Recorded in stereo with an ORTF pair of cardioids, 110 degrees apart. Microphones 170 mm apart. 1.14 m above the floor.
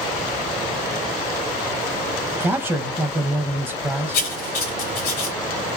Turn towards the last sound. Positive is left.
turn(degrees=60)